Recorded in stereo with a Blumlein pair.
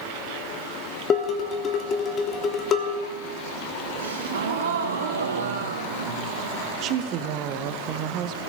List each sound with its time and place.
1.1 s dishes clattering: 25° left, 1.2 m
4.0 s a gasp: 65° right, 1.1 m
6.8 s a woman speaking: 35° right, 0.6 m